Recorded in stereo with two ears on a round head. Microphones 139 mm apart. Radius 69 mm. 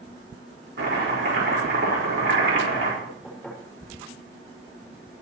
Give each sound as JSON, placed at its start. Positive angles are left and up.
{"t": 0.8, "sound": "chopping", "side_deg": -80, "distance_m": 5.0}
{"t": 3.0, "sound": "knocking", "side_deg": 0, "distance_m": 5.5}